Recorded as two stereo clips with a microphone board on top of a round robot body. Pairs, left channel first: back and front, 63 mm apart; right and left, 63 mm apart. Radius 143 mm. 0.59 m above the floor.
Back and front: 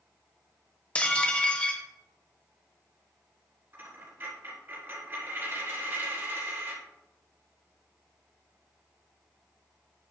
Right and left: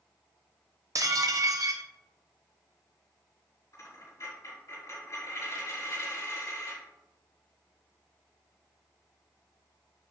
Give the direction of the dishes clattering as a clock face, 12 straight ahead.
8 o'clock.